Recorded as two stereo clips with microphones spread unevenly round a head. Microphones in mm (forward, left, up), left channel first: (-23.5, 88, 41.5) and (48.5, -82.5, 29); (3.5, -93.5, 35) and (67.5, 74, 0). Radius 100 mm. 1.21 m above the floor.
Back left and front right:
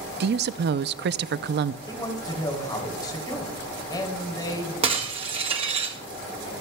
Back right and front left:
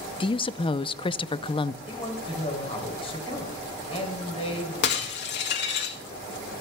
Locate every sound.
0.2 s a woman speaking: 45° right, 0.5 m
1.9 s a man speaking: 175° right, 3 m
4.8 s breaking glass: 130° right, 1.6 m